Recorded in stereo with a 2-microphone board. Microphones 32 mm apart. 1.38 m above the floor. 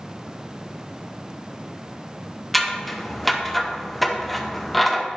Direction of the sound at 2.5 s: Centre (ahead or behind).